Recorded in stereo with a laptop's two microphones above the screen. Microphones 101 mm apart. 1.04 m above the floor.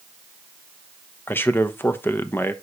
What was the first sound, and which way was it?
A man speaking, 20° left (ahead or behind).